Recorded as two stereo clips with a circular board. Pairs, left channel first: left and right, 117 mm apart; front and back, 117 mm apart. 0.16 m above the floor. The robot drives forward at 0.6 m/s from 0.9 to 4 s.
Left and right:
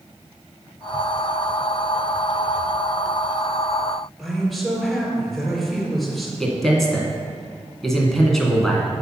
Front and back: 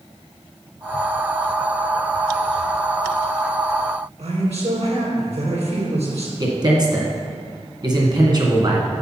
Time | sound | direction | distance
4.2 | a man speaking | straight behind | 3 m
6.4 | a man speaking | 175° left | 1.9 m